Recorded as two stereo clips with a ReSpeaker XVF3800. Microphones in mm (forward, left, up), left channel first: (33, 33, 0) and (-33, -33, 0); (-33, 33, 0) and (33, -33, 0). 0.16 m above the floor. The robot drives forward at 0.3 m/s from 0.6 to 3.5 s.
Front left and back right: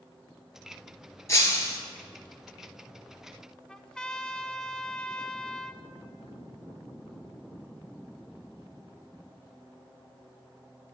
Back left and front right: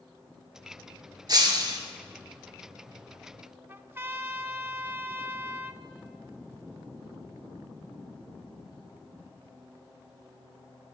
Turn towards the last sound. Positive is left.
turn(degrees=-25)